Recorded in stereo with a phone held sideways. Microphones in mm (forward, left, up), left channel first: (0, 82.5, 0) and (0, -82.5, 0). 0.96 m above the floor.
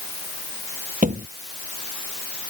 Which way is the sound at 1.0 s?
50° right (ahead or behind).